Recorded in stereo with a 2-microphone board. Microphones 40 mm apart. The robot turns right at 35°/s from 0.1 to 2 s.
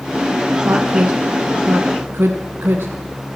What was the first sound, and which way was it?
A woman speaking, 65° right (ahead or behind).